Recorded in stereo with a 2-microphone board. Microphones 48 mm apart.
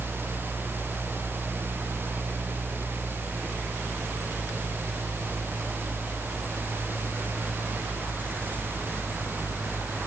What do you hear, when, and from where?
Only background noise.